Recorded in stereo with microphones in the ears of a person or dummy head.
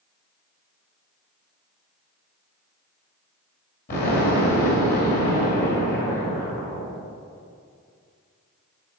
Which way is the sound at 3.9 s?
50° left (ahead or behind).